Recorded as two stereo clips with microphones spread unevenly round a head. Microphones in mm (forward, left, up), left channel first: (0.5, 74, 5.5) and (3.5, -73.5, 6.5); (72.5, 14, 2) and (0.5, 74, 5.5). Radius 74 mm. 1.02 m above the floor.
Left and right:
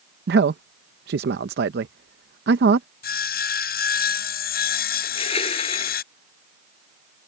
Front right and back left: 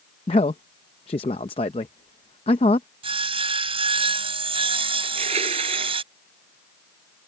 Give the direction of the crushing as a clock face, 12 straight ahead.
7 o'clock.